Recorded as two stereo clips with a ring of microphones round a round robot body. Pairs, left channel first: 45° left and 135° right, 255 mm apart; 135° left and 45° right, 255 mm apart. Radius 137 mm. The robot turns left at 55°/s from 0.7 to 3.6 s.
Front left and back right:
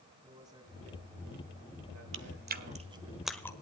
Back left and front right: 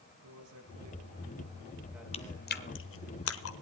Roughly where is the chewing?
Behind.